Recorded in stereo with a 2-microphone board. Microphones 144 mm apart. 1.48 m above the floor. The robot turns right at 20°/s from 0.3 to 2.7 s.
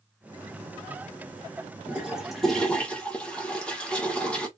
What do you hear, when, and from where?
1.9 s a toilet flushing: 10° right (ahead or behind), 1.4 m; by 4.5 s 10° left (ahead or behind), 1.4 m